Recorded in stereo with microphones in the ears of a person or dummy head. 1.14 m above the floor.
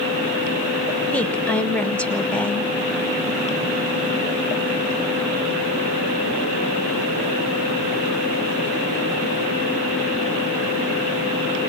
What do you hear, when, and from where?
1.1 s a woman speaking: 5° left (ahead or behind), 1.0 m